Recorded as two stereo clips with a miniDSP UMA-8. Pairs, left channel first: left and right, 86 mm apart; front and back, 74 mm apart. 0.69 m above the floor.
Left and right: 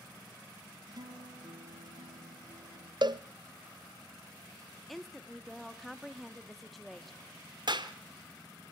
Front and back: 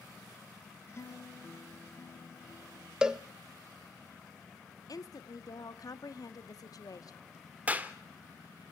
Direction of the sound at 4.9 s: Straight ahead.